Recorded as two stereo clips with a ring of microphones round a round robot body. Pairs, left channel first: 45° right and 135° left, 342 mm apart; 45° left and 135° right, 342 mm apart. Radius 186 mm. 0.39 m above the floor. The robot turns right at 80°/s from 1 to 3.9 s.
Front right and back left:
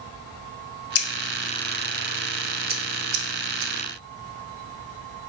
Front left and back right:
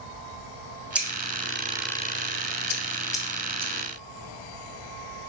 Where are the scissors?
50° right, 0.5 m; by 3.7 s 170° left, 0.5 m.